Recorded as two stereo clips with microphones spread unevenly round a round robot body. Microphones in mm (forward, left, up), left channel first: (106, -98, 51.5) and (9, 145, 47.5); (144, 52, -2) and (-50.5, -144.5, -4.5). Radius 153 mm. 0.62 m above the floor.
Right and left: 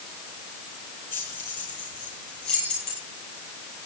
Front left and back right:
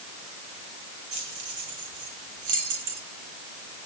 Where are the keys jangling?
115° right, 9.5 m; by 3.0 s 120° right, 11 m.